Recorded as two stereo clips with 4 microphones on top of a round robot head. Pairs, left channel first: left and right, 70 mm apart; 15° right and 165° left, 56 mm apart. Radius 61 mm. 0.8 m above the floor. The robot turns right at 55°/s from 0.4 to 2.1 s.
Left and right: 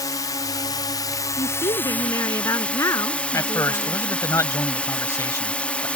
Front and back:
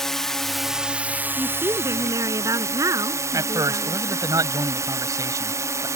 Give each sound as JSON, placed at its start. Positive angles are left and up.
{"t": 0.0, "sound": "a drone", "azimuth_deg": 65}
{"t": 1.4, "sound": "a woman speaking", "azimuth_deg": 95}
{"t": 3.3, "sound": "a man speaking", "azimuth_deg": 140}